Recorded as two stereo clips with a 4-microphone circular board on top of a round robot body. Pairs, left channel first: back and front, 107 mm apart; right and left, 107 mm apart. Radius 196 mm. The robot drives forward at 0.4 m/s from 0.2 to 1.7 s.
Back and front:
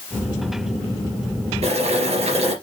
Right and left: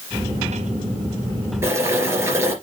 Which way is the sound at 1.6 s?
25° left.